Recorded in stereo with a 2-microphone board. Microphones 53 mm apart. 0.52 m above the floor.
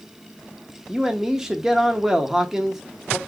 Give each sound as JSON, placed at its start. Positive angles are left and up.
{"t": 0.9, "sound": "a man speaking", "side_deg": -10, "distance_m": 0.8}